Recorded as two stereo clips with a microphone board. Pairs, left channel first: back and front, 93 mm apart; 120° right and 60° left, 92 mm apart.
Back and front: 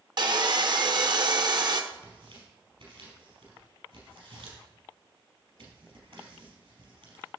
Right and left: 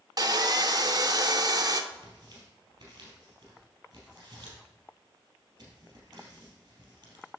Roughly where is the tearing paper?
Ahead.